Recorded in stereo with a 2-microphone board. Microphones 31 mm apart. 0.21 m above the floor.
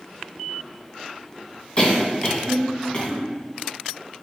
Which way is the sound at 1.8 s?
30° left (ahead or behind).